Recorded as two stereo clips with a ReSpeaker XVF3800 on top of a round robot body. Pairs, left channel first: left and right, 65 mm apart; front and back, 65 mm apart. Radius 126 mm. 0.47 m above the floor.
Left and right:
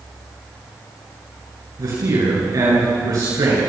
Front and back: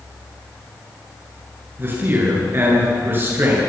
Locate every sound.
1.8 s a man speaking: 125° right, 9.5 m